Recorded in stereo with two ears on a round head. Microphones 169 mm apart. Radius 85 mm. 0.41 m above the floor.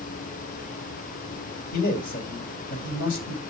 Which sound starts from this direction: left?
A man speaking, at 1.7 s.